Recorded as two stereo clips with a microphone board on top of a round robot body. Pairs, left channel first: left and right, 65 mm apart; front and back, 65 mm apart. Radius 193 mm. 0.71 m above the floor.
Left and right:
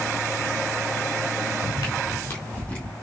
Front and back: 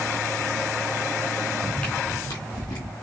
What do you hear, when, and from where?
1.6 s footsteps: 95° left, 1.2 m; by 2.9 s 15° left, 2 m